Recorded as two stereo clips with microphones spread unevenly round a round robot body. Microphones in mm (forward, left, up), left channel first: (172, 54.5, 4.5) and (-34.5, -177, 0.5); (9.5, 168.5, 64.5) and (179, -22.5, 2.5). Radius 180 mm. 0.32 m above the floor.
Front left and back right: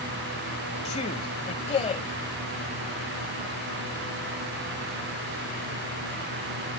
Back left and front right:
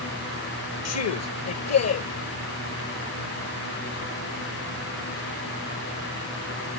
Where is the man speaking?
115° left.